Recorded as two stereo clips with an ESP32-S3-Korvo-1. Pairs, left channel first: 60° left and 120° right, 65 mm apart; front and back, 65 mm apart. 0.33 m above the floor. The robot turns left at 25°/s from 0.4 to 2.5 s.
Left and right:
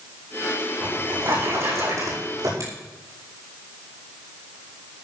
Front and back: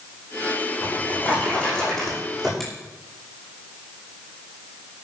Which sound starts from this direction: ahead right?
A drawer, at 0.8 s.